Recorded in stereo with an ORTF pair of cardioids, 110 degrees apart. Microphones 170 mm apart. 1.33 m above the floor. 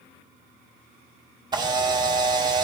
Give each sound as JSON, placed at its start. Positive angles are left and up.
{"t": 1.5, "sound": "a camera shutter", "azimuth_deg": -25, "distance_m": 1.6}